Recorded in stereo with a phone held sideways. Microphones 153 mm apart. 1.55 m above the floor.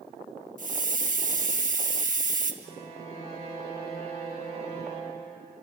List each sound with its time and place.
0.6 s a hiss: 55° right (ahead or behind), 1.6 m
2.6 s a violin: 45° left (ahead or behind), 10 m